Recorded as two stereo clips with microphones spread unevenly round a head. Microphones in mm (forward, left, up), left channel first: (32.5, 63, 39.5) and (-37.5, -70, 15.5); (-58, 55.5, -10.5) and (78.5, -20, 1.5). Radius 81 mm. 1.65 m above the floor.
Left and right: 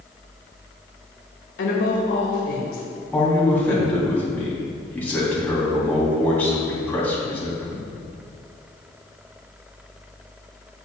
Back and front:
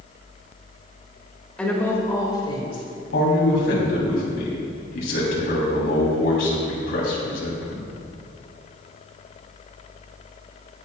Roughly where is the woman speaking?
Ahead left.